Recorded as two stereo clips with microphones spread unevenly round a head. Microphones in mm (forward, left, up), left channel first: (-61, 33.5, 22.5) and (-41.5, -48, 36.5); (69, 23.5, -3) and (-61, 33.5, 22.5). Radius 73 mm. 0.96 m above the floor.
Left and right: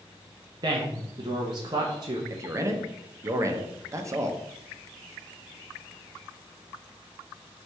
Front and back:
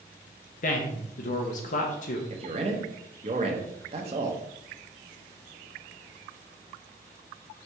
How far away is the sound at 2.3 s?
About 0.7 m.